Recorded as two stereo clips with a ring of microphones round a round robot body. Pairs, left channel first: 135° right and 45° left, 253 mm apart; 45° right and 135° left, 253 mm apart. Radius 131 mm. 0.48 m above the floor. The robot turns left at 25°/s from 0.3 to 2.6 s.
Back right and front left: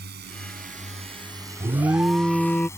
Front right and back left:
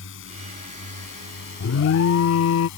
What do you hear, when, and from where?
0.0 s a drone: 5° right; by 2.8 s 55° right
1.6 s an alarm: 25° right; by 2.7 s 50° right